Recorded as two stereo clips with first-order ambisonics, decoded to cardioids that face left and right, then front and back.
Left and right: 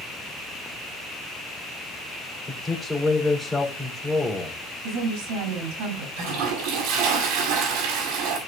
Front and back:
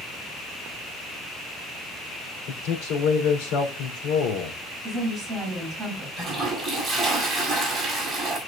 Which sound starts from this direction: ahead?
A man speaking, at 2.5 s.